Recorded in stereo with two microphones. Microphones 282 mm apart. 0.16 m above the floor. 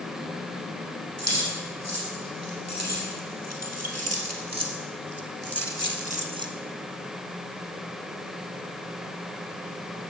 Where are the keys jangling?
65° right (ahead or behind), 5 m; by 6.5 s 10° right (ahead or behind), 1.1 m.